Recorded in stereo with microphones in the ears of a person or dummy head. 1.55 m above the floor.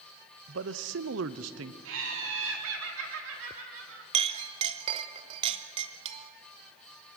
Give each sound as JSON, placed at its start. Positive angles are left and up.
{"t": 0.5, "sound": "a man speaking", "side_deg": -65, "distance_m": 0.8}
{"t": 1.9, "sound": "laughter", "side_deg": -85, "distance_m": 4.5}
{"t": 4.1, "sound": "a clink", "side_deg": -35, "distance_m": 1.0}